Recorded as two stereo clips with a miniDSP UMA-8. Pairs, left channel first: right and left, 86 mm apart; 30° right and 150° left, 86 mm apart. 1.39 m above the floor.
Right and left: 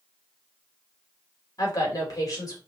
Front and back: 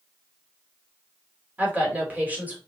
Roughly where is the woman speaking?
Behind right.